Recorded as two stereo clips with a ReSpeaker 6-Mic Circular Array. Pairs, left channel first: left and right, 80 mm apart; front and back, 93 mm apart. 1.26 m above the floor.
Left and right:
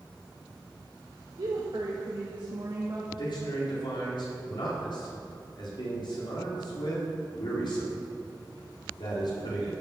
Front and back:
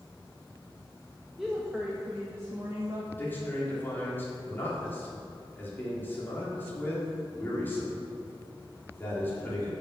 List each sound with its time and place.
1.4 s a woman speaking: 90° right, 1.6 m; by 3.0 s 130° right, 2.5 m
3.1 s a man speaking: 70° left, 4 m